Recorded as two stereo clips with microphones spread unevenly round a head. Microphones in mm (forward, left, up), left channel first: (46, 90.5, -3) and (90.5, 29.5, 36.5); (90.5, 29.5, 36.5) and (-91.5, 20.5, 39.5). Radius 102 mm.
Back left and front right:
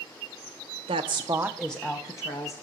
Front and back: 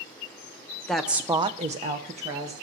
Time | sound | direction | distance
0.9 | a woman speaking | 85° right | 1.0 m